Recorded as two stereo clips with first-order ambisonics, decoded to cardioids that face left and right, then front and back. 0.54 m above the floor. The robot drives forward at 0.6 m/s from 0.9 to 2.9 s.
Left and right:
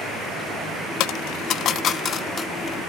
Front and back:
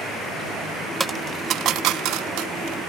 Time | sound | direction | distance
1.0 | a dropped coin | 100° left | 0.5 m